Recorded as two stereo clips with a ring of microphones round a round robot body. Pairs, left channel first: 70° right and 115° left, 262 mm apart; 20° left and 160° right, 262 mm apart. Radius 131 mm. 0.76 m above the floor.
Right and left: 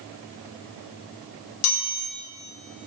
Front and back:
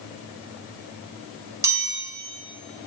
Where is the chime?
80° right, 3 m.